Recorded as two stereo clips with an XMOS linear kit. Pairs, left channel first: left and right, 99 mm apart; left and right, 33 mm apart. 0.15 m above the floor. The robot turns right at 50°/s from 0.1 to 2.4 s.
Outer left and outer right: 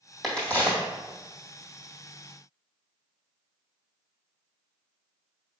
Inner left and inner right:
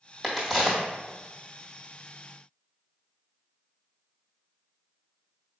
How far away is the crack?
About 1.8 m.